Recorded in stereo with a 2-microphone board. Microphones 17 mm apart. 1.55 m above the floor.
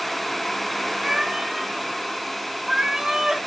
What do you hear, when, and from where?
1.0 s a cat meowing: 45° right (ahead or behind), 2 m